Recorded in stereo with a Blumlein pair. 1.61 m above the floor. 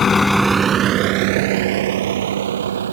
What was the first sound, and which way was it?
A vehicle, 20° left.